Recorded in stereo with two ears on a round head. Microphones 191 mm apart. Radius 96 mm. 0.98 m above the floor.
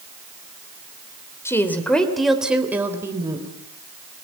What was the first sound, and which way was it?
A woman speaking, 10° left (ahead or behind).